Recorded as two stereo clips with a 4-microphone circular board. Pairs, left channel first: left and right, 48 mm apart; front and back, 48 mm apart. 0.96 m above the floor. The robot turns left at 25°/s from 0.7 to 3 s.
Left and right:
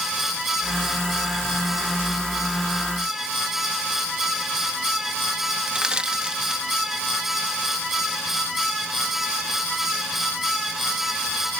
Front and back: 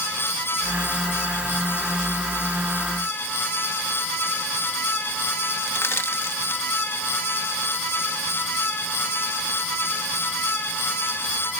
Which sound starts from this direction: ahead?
Crushing, at 5.7 s.